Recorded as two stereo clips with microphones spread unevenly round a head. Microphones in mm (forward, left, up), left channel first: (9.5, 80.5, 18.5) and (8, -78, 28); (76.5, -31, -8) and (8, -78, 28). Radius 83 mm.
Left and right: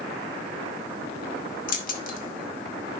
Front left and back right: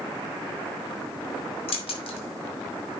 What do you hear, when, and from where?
1.7 s keys jangling: 55° left, 1.8 m